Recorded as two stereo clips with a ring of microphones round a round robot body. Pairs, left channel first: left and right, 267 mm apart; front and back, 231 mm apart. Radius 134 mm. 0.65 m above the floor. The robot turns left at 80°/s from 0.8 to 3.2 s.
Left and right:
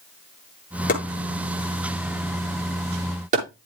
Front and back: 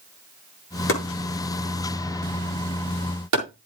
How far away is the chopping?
About 7.5 m.